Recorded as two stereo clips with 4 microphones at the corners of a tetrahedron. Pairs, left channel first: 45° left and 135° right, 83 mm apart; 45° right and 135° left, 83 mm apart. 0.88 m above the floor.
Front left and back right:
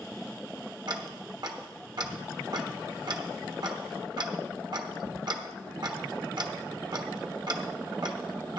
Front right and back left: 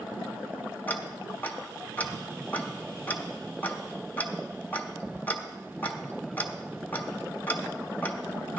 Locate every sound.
0.9 s ticking: 110° right, 1.2 m